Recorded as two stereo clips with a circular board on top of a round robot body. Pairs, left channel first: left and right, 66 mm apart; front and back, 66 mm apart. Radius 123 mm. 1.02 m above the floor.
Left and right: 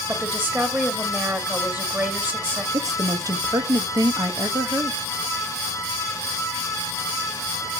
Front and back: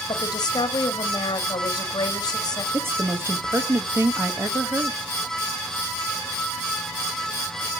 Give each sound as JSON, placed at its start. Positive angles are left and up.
{"t": 0.1, "sound": "a woman speaking", "azimuth_deg": -25, "distance_m": 1.8}
{"t": 2.7, "sound": "a woman speaking", "azimuth_deg": -125, "distance_m": 1.5}